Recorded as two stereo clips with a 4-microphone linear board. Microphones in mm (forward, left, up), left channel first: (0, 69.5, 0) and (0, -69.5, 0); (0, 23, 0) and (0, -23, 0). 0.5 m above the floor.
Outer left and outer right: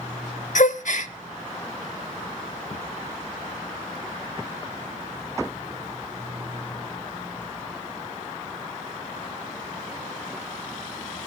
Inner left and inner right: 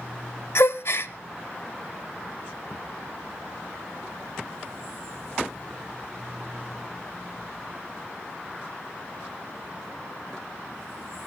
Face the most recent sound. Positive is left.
turn(degrees=65)  # may be behind; listen again after turning